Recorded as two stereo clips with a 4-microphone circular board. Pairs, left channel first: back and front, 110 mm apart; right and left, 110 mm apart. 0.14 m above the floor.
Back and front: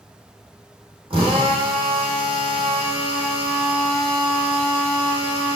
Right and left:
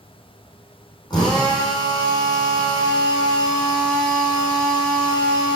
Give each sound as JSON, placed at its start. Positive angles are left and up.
{"t": 1.1, "sound": "a drill", "azimuth_deg": -40, "distance_m": 4.0}